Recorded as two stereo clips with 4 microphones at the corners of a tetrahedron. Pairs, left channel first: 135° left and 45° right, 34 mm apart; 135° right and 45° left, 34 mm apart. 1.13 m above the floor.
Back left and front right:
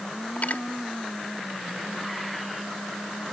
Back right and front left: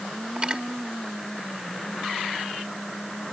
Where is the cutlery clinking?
105° left, 1.5 m.